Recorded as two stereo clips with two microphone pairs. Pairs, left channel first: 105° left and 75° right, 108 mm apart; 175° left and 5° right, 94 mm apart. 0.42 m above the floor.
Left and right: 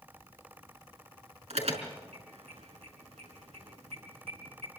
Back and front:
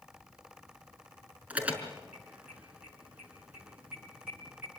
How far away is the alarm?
About 5 m.